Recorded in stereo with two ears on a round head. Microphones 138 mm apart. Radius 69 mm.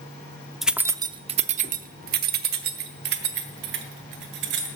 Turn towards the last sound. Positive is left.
turn(degrees=-75)  # may be behind; listen again after turning